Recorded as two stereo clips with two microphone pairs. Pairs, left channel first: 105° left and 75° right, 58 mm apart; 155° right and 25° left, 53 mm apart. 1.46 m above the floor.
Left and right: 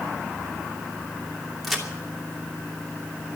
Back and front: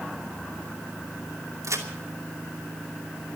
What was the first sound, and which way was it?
A crack, 20° left.